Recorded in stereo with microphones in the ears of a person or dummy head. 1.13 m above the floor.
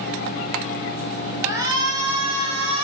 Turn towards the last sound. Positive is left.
turn(degrees=-35)  # may be behind; listen again after turning